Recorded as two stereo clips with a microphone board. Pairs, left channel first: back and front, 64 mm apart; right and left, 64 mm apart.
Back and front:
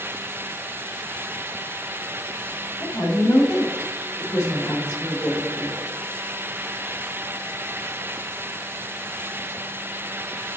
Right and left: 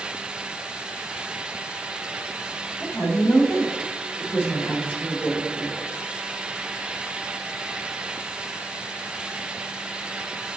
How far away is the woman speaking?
About 3 m.